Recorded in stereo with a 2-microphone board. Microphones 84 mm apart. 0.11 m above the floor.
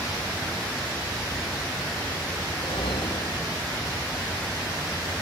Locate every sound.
2.5 s a whoosh: 85° left